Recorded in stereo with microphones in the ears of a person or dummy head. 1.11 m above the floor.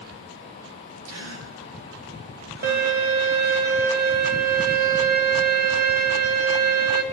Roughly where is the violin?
Right.